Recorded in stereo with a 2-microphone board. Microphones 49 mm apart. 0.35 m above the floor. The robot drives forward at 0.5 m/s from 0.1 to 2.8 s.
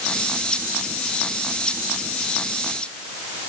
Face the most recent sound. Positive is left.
No sound to turn to.